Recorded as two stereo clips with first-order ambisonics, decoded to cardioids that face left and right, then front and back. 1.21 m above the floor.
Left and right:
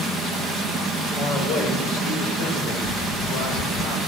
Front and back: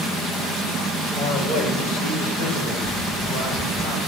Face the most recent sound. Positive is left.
turn(degrees=60)